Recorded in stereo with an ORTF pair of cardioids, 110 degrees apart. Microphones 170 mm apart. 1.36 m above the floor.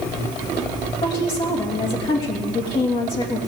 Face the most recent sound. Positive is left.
turn(degrees=30)